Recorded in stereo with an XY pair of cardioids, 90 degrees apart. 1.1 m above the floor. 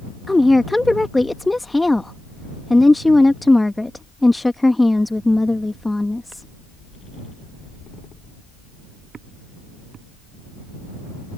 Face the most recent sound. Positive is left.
turn(degrees=15)